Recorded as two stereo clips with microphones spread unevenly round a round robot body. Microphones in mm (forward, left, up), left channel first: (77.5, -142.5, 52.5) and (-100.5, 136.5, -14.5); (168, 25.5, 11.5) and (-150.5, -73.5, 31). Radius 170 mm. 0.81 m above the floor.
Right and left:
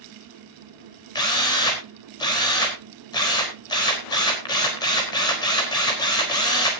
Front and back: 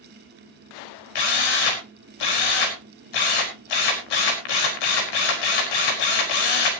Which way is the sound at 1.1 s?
25° left.